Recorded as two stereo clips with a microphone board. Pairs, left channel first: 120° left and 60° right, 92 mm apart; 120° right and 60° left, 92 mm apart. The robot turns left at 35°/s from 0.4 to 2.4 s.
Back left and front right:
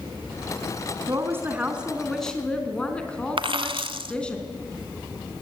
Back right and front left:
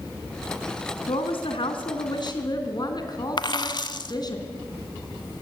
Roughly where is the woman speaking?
Behind right.